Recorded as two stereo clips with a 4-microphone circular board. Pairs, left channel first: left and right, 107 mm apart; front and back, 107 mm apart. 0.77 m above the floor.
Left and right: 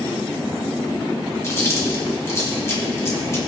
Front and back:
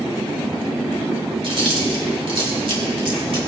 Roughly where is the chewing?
Behind left.